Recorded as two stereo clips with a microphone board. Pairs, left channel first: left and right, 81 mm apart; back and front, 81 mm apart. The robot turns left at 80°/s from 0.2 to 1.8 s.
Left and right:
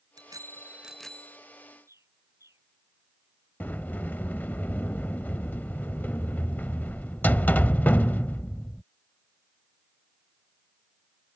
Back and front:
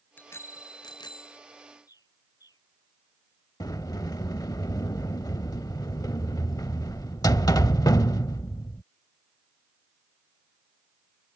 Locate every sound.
0.2 s a bicycle bell: 115° right; by 1.4 s 150° left
1.9 s a bird: 140° right
3.6 s a sliding door: 155° left